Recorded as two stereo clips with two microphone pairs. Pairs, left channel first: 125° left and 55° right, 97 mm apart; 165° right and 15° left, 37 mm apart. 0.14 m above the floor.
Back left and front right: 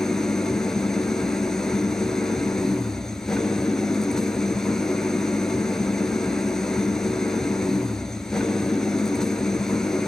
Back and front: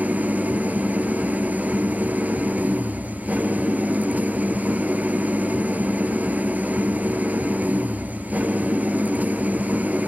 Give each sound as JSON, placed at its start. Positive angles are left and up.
{"t": 0.0, "sound": "an engine running", "azimuth_deg": 40, "distance_m": 1.0}